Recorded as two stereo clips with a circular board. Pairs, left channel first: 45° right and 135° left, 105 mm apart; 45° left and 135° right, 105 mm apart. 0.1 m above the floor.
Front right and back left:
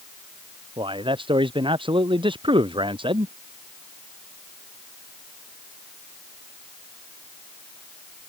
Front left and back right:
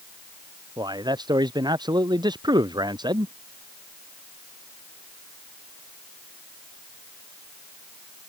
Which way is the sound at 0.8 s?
175° left.